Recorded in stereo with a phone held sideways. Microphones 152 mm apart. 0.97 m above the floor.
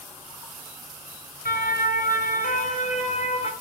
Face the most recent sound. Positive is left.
turn(degrees=40)  # may be behind; listen again after turning